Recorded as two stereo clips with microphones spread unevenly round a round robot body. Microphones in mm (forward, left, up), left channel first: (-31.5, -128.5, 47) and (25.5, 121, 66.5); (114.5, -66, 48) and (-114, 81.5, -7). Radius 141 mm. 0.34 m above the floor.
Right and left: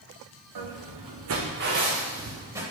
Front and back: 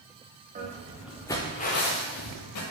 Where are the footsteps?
85° left, 1.4 m; by 2.6 s 5° right, 2 m.